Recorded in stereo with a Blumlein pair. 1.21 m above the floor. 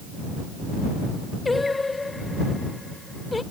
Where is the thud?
I don't hear a thud.